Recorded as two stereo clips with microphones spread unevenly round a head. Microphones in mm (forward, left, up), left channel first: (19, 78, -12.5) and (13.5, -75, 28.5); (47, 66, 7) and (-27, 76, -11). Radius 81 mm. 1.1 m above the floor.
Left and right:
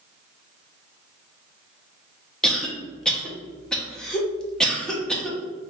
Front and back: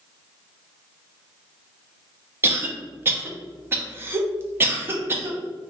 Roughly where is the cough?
Behind left.